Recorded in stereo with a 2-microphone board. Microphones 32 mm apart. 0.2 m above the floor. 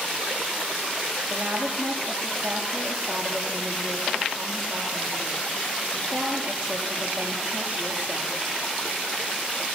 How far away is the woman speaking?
About 6 m.